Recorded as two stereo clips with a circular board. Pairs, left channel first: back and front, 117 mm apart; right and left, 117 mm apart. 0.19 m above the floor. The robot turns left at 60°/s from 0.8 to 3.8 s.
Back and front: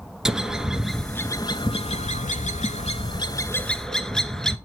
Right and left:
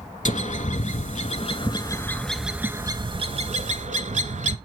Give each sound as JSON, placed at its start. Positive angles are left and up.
{"t": 0.2, "sound": "a bird", "azimuth_deg": -85, "distance_m": 0.6}